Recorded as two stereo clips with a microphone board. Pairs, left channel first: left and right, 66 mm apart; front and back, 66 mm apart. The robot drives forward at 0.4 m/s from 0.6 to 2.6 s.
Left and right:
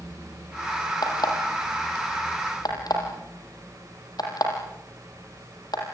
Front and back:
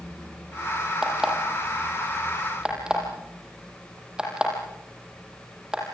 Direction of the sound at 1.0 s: 100° left.